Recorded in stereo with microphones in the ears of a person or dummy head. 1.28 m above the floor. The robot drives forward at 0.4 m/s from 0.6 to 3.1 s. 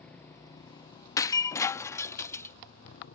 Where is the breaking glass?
20° left (ahead or behind); by 2.5 s 10° left (ahead or behind).